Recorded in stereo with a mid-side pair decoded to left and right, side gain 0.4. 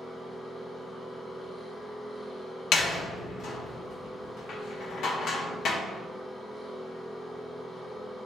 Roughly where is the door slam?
Left.